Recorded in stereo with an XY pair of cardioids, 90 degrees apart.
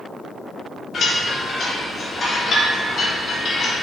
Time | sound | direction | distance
0.9 | a chime | 55° left | 2.5 m